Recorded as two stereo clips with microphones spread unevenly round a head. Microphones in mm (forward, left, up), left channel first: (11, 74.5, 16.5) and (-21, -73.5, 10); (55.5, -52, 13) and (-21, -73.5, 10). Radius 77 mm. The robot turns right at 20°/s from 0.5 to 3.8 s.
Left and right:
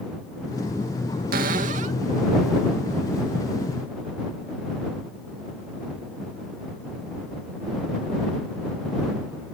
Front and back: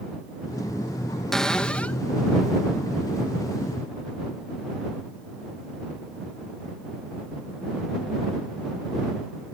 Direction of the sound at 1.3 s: 70° right.